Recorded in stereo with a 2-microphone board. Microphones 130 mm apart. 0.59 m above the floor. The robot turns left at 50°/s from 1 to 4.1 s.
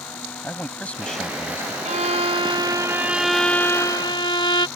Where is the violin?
105° right; by 4.7 s 140° left.